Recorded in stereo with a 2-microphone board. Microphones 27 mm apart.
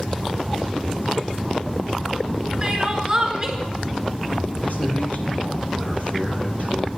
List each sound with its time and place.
2.6 s crying: 20° right (ahead or behind), 1.9 m
4.6 s a man speaking: 65° left (ahead or behind), 4 m